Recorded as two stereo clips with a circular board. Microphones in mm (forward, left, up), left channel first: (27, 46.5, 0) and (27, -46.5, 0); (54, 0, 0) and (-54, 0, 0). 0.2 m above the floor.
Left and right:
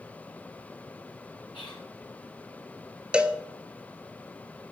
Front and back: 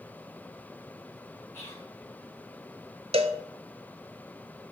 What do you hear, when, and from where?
1.5 s whispering: 65° left, 3 m
3.1 s a cowbell: 170° right, 0.8 m